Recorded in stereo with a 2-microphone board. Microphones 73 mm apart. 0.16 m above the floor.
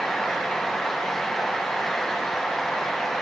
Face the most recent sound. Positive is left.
No sound to turn to.